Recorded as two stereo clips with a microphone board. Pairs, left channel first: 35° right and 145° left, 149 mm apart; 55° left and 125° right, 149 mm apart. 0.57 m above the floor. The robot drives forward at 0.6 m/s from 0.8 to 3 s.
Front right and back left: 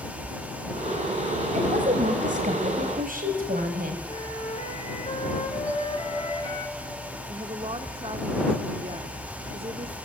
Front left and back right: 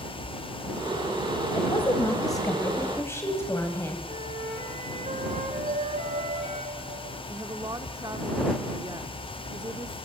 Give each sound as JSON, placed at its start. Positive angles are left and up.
{"t": 1.5, "sound": "a woman speaking", "azimuth_deg": 115, "distance_m": 3.0}
{"t": 4.1, "sound": "a flute", "azimuth_deg": -80, "distance_m": 5.5}
{"t": 5.7, "sound": "a bell", "azimuth_deg": -135, "distance_m": 1.7}
{"t": 7.3, "sound": "a woman speaking", "azimuth_deg": 180, "distance_m": 0.9}